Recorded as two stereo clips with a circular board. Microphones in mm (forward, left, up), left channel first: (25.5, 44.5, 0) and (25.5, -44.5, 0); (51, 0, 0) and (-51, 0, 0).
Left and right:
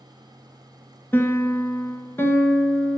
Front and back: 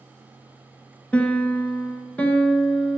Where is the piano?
65° left, 1.3 m.